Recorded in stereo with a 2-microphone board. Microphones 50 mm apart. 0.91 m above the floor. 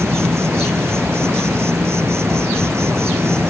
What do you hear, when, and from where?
0.0 s an insect: 60° right (ahead or behind)